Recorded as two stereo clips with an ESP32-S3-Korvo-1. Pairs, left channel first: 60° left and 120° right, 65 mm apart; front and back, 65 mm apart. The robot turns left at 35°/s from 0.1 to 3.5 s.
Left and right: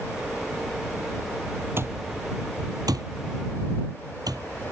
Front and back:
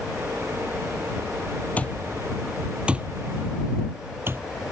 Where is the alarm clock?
70° right; by 4.5 s 130° right.